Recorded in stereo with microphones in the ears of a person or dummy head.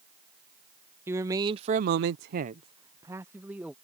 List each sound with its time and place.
1.1 s a man speaking: 20° right (ahead or behind); by 3.7 s 15° right (ahead or behind)